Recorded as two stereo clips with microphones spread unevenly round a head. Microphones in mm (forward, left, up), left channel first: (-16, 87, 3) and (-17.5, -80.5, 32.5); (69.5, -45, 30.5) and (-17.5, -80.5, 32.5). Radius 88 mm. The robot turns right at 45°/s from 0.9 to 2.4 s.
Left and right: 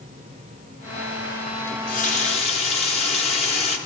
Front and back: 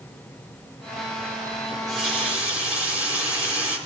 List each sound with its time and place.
1.7 s a running tap: 105° left, 1.2 m; by 3.8 s 140° left, 1.2 m